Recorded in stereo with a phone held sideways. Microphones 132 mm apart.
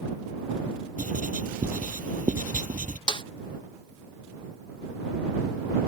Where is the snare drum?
40° left (ahead or behind).